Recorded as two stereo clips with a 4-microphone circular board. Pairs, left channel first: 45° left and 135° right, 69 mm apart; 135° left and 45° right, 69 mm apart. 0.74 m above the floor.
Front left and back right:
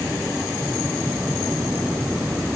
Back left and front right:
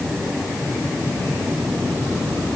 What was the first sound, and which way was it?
Only background noise.